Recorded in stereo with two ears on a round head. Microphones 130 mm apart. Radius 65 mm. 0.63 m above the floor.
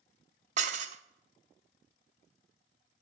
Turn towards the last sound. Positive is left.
turn(degrees=-50)  # may be behind; listen again after turning